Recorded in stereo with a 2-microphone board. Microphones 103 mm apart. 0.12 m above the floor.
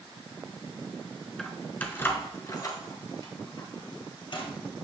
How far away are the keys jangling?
About 0.8 m.